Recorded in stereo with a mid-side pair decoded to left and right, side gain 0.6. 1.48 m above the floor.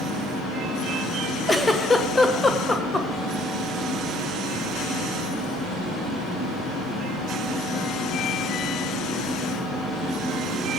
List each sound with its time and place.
1.5 s a giggle: 15° left, 1.2 m